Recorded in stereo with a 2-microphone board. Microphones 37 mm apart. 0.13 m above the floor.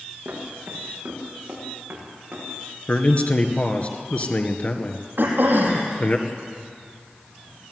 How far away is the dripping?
No dripping in this recording.